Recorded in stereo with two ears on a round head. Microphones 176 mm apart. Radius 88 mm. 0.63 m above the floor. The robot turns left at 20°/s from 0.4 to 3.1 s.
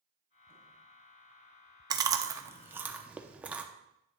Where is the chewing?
20° right (ahead or behind), 0.7 m; by 3.6 s 5° right (ahead or behind), 0.7 m.